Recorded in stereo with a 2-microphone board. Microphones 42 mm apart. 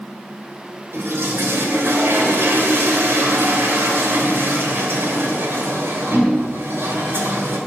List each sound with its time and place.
0.9 s a toilet flushing: 80° right, 2.5 m